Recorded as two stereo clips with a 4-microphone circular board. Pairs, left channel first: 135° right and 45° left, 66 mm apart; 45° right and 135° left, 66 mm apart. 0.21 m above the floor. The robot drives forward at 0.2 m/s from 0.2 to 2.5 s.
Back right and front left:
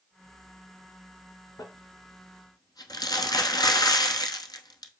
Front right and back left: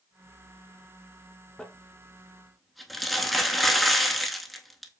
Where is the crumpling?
125° right, 0.6 m; by 4.9 s 135° right, 0.7 m.